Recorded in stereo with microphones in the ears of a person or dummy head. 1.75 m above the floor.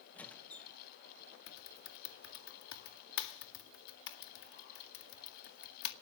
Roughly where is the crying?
I don't hear crying.